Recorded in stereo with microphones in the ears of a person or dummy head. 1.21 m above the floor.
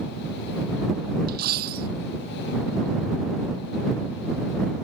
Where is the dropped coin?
60° right (ahead or behind).